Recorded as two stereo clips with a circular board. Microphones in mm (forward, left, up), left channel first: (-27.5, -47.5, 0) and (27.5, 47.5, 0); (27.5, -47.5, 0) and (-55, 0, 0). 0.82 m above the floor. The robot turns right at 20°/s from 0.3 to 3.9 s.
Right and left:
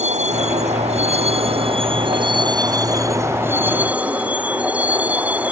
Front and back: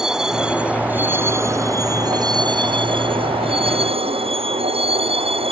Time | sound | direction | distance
0.0 | a vehicle | 65° left | ?